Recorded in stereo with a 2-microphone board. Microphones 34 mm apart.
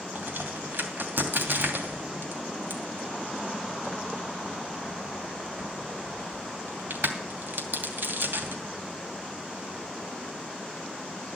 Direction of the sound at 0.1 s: 75° right (ahead or behind).